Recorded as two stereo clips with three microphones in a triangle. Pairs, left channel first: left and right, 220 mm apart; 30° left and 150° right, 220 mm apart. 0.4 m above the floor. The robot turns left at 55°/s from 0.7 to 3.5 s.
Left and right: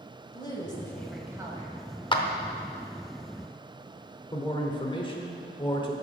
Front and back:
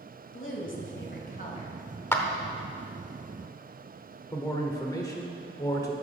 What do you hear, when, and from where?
0.3 s a woman speaking: 20° left, 1.7 m; by 1.7 s 35° right, 1.7 m
2.1 s a clap: 90° left, 0.8 m; by 2.2 s 80° left, 0.8 m
4.3 s a man speaking: 75° left, 0.9 m